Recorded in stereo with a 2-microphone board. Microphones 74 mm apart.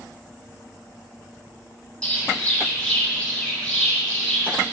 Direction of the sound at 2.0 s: 15° left (ahead or behind).